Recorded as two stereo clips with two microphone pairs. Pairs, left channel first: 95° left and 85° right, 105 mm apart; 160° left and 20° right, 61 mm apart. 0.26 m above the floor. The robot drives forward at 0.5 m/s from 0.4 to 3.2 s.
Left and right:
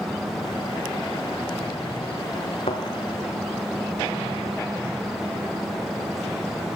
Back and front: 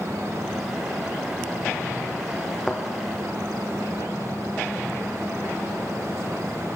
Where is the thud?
80° left, 1.8 m; by 2.8 s 85° left, 1.8 m.